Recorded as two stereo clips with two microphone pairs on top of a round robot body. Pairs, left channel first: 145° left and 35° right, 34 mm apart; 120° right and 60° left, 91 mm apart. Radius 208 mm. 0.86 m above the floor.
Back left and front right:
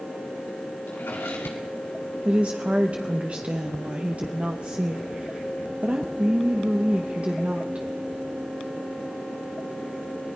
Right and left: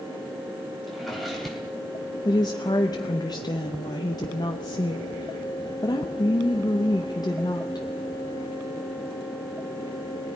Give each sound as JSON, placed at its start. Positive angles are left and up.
{"t": 0.9, "sound": "a drawer", "azimuth_deg": 150, "distance_m": 3.0}
{"t": 2.2, "sound": "a woman speaking", "azimuth_deg": -85, "distance_m": 1.3}